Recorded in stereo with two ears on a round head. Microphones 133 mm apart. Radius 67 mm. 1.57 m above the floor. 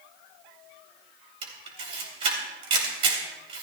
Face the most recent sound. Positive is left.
turn(degrees=-40)  # may be behind; listen again after turning